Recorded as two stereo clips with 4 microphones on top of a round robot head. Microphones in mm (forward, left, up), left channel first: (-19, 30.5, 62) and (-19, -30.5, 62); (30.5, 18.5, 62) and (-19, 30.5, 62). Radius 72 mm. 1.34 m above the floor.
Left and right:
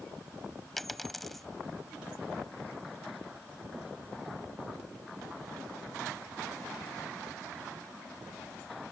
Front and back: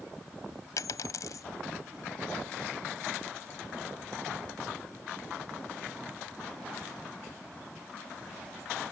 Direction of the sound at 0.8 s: Straight ahead.